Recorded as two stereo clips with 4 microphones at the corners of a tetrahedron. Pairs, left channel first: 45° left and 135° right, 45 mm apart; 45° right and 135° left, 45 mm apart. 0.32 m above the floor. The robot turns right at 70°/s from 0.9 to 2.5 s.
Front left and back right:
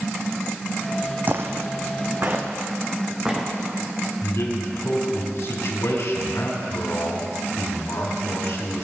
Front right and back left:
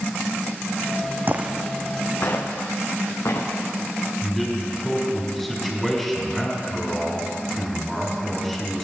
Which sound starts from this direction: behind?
Footsteps, at 1.3 s.